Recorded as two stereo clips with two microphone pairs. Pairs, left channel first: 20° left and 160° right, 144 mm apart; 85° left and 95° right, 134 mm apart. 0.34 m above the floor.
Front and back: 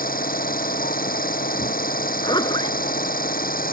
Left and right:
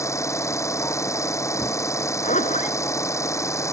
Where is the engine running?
15° left.